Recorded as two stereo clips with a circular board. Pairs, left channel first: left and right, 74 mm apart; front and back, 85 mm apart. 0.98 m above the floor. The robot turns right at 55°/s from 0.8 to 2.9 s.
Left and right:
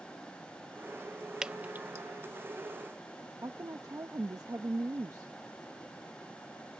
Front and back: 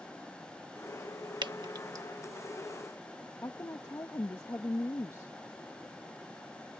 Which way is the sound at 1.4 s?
170° right.